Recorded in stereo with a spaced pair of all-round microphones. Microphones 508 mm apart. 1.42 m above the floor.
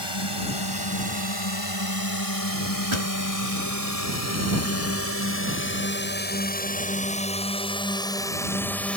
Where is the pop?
65° right (ahead or behind).